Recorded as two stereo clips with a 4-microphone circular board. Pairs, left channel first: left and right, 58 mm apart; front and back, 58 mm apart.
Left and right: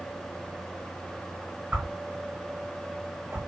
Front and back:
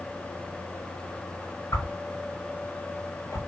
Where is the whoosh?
35° right, 2 m.